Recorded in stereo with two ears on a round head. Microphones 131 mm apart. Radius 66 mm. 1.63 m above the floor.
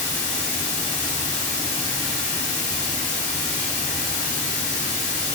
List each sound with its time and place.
0.0 s running water: 55° left (ahead or behind), 0.8 m